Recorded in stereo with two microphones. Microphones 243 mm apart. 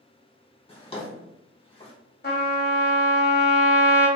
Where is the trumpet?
45° left (ahead or behind), 1.0 m.